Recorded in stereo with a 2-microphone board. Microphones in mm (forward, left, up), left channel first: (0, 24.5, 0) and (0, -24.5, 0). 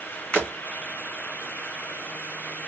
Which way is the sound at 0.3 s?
30° left (ahead or behind).